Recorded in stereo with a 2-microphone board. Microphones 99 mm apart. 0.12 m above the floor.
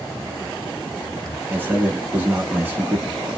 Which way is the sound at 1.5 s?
20° right (ahead or behind).